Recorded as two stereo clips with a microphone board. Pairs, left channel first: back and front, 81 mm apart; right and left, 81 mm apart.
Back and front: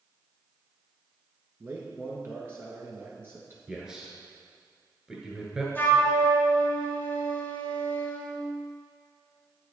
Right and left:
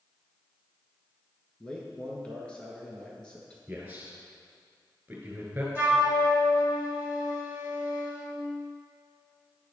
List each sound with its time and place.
1.6 s a man speaking: 25° right, 1.2 m
3.7 s a man speaking: 65° left, 1.7 m
5.8 s a flute: 140° left, 1.3 m